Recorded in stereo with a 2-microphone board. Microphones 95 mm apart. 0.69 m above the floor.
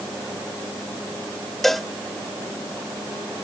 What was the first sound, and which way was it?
A cowbell, 5° left (ahead or behind).